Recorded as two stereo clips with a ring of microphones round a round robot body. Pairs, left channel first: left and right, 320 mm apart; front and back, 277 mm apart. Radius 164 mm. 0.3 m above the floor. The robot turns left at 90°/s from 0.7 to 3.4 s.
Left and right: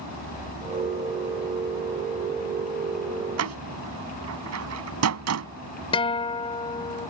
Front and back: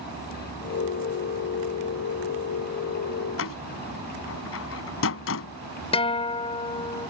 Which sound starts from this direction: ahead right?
A door slam, at 3.4 s.